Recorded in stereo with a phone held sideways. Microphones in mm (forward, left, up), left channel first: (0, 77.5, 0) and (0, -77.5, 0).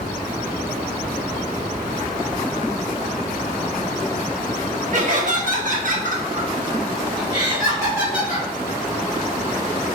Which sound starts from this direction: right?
Laughter, at 4.9 s.